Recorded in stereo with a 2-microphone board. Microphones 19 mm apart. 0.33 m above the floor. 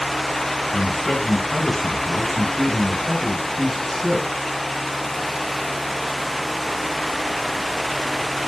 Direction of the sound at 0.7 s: 25° left (ahead or behind).